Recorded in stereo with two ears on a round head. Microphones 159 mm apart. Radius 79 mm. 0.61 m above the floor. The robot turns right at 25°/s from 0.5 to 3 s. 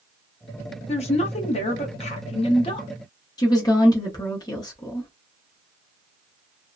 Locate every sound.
0.9 s a woman speaking: 75° left, 0.7 m; by 2.9 s 125° left, 0.7 m
3.4 s a woman speaking: 20° left (ahead or behind), 0.7 m